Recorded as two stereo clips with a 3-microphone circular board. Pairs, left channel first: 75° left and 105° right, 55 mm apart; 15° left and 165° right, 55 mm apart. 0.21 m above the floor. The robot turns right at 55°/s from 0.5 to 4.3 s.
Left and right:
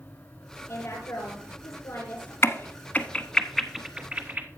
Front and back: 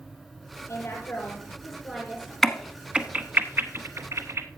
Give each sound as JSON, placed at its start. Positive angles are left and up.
{"t": 0.7, "sound": "a woman speaking", "azimuth_deg": 45, "distance_m": 4.0}
{"t": 2.4, "sound": "a crack", "azimuth_deg": 100, "distance_m": 0.9}